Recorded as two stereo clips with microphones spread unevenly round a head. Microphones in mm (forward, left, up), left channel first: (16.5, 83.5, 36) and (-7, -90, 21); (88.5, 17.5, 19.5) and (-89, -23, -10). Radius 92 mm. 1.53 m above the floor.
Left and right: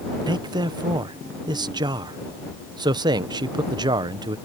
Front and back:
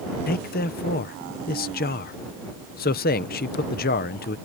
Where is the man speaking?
30° right.